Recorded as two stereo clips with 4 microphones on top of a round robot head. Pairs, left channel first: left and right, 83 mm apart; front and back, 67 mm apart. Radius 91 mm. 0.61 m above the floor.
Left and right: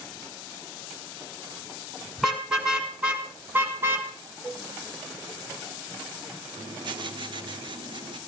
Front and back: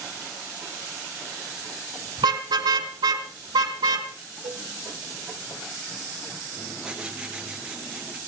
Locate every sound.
2.2 s a car horn: 175° right, 3 m; by 4.1 s 155° right, 2.5 m
4.4 s a cowbell: 160° right, 1.1 m
6.6 s writing: 100° right, 2.5 m